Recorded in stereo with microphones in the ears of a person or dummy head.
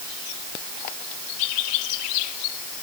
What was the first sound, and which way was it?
Only background noise.